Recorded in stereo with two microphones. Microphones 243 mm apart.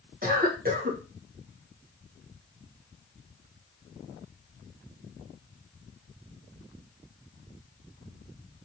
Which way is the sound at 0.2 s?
35° right (ahead or behind).